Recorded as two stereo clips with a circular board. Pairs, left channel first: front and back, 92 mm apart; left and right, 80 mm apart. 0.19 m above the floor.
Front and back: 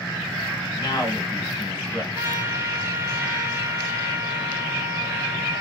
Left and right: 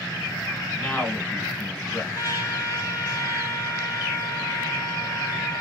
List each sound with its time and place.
0.8 s a man speaking: 25° left, 1.4 m
2.1 s a trumpet: 130° left, 1.1 m